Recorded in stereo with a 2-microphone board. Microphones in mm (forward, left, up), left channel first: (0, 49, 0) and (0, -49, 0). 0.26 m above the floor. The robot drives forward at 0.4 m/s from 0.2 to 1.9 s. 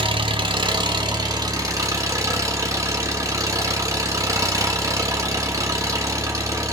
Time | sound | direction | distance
0.0 | an engine running | 55° right (ahead or behind) | 0.8 m